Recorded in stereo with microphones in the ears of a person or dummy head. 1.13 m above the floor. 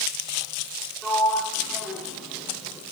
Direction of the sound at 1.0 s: Centre (ahead or behind).